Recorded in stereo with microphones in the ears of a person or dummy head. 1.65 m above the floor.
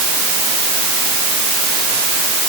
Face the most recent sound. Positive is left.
No sound to turn to.